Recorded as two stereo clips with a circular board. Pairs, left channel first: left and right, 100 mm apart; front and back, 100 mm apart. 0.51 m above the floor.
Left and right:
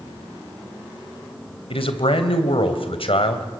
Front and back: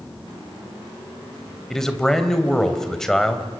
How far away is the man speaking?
About 3 m.